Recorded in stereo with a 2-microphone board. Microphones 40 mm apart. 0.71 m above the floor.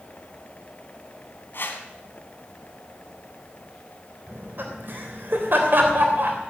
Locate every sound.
1.5 s a whoosh: 65° left (ahead or behind), 2.0 m
4.3 s laughter: 60° right (ahead or behind), 3 m